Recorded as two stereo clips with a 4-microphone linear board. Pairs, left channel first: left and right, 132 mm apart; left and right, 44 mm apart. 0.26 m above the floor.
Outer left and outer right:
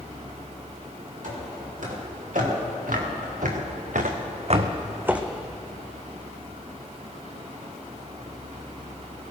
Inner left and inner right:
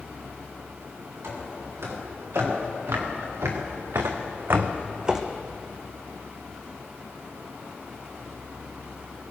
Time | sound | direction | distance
1.2 | footsteps | 80° right | 5.5 m